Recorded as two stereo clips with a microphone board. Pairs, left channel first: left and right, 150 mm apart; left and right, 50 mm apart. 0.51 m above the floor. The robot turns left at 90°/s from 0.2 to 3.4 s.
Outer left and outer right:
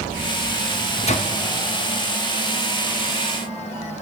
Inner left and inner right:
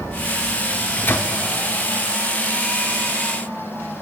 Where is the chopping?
No chopping in this recording.